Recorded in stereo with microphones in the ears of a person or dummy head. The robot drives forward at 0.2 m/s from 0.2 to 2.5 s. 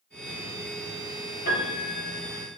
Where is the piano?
45° left (ahead or behind), 1.6 m; by 2.5 s 40° left (ahead or behind), 1.7 m.